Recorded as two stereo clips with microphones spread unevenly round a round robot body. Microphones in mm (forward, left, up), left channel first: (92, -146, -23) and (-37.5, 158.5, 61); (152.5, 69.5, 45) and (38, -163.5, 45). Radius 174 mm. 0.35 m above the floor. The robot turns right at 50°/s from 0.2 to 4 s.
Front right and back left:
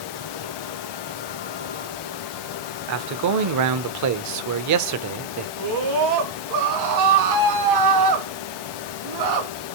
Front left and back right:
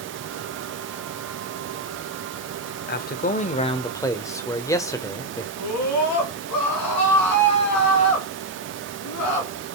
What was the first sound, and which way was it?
A man speaking, 80° left.